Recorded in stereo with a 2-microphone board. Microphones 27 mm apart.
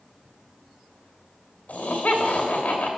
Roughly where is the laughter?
Left.